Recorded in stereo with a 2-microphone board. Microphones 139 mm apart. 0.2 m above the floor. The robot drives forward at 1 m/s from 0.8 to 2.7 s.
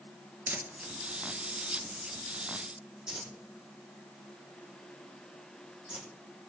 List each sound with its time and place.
0.5 s crumpling: 15° right (ahead or behind), 1.2 m; by 6.1 s 5° right (ahead or behind), 3 m